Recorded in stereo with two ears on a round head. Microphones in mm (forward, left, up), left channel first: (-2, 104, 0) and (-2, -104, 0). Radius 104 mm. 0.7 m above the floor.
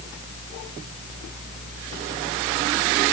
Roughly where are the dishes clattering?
I don't hear dishes clattering.